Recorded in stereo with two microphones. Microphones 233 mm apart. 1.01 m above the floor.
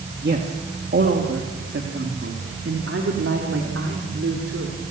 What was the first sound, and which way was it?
A man speaking, 45° right (ahead or behind).